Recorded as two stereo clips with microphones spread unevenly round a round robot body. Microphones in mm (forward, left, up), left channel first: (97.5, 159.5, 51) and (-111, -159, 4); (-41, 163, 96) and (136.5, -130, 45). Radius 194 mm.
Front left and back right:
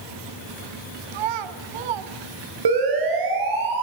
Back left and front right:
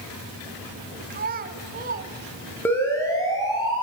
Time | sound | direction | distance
1.1 | a child speaking | 120° right | 1.9 m
2.6 | a siren | 155° right | 6.5 m